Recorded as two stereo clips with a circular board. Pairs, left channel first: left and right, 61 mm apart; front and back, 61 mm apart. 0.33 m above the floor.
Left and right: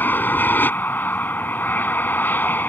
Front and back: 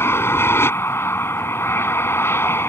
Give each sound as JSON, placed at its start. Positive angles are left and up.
{"t": 0.0, "sound": "an aircraft", "azimuth_deg": 40}